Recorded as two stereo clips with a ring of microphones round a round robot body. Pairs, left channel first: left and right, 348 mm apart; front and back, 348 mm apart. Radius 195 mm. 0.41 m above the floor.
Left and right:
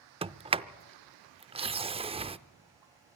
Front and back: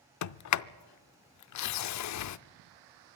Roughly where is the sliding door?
Ahead.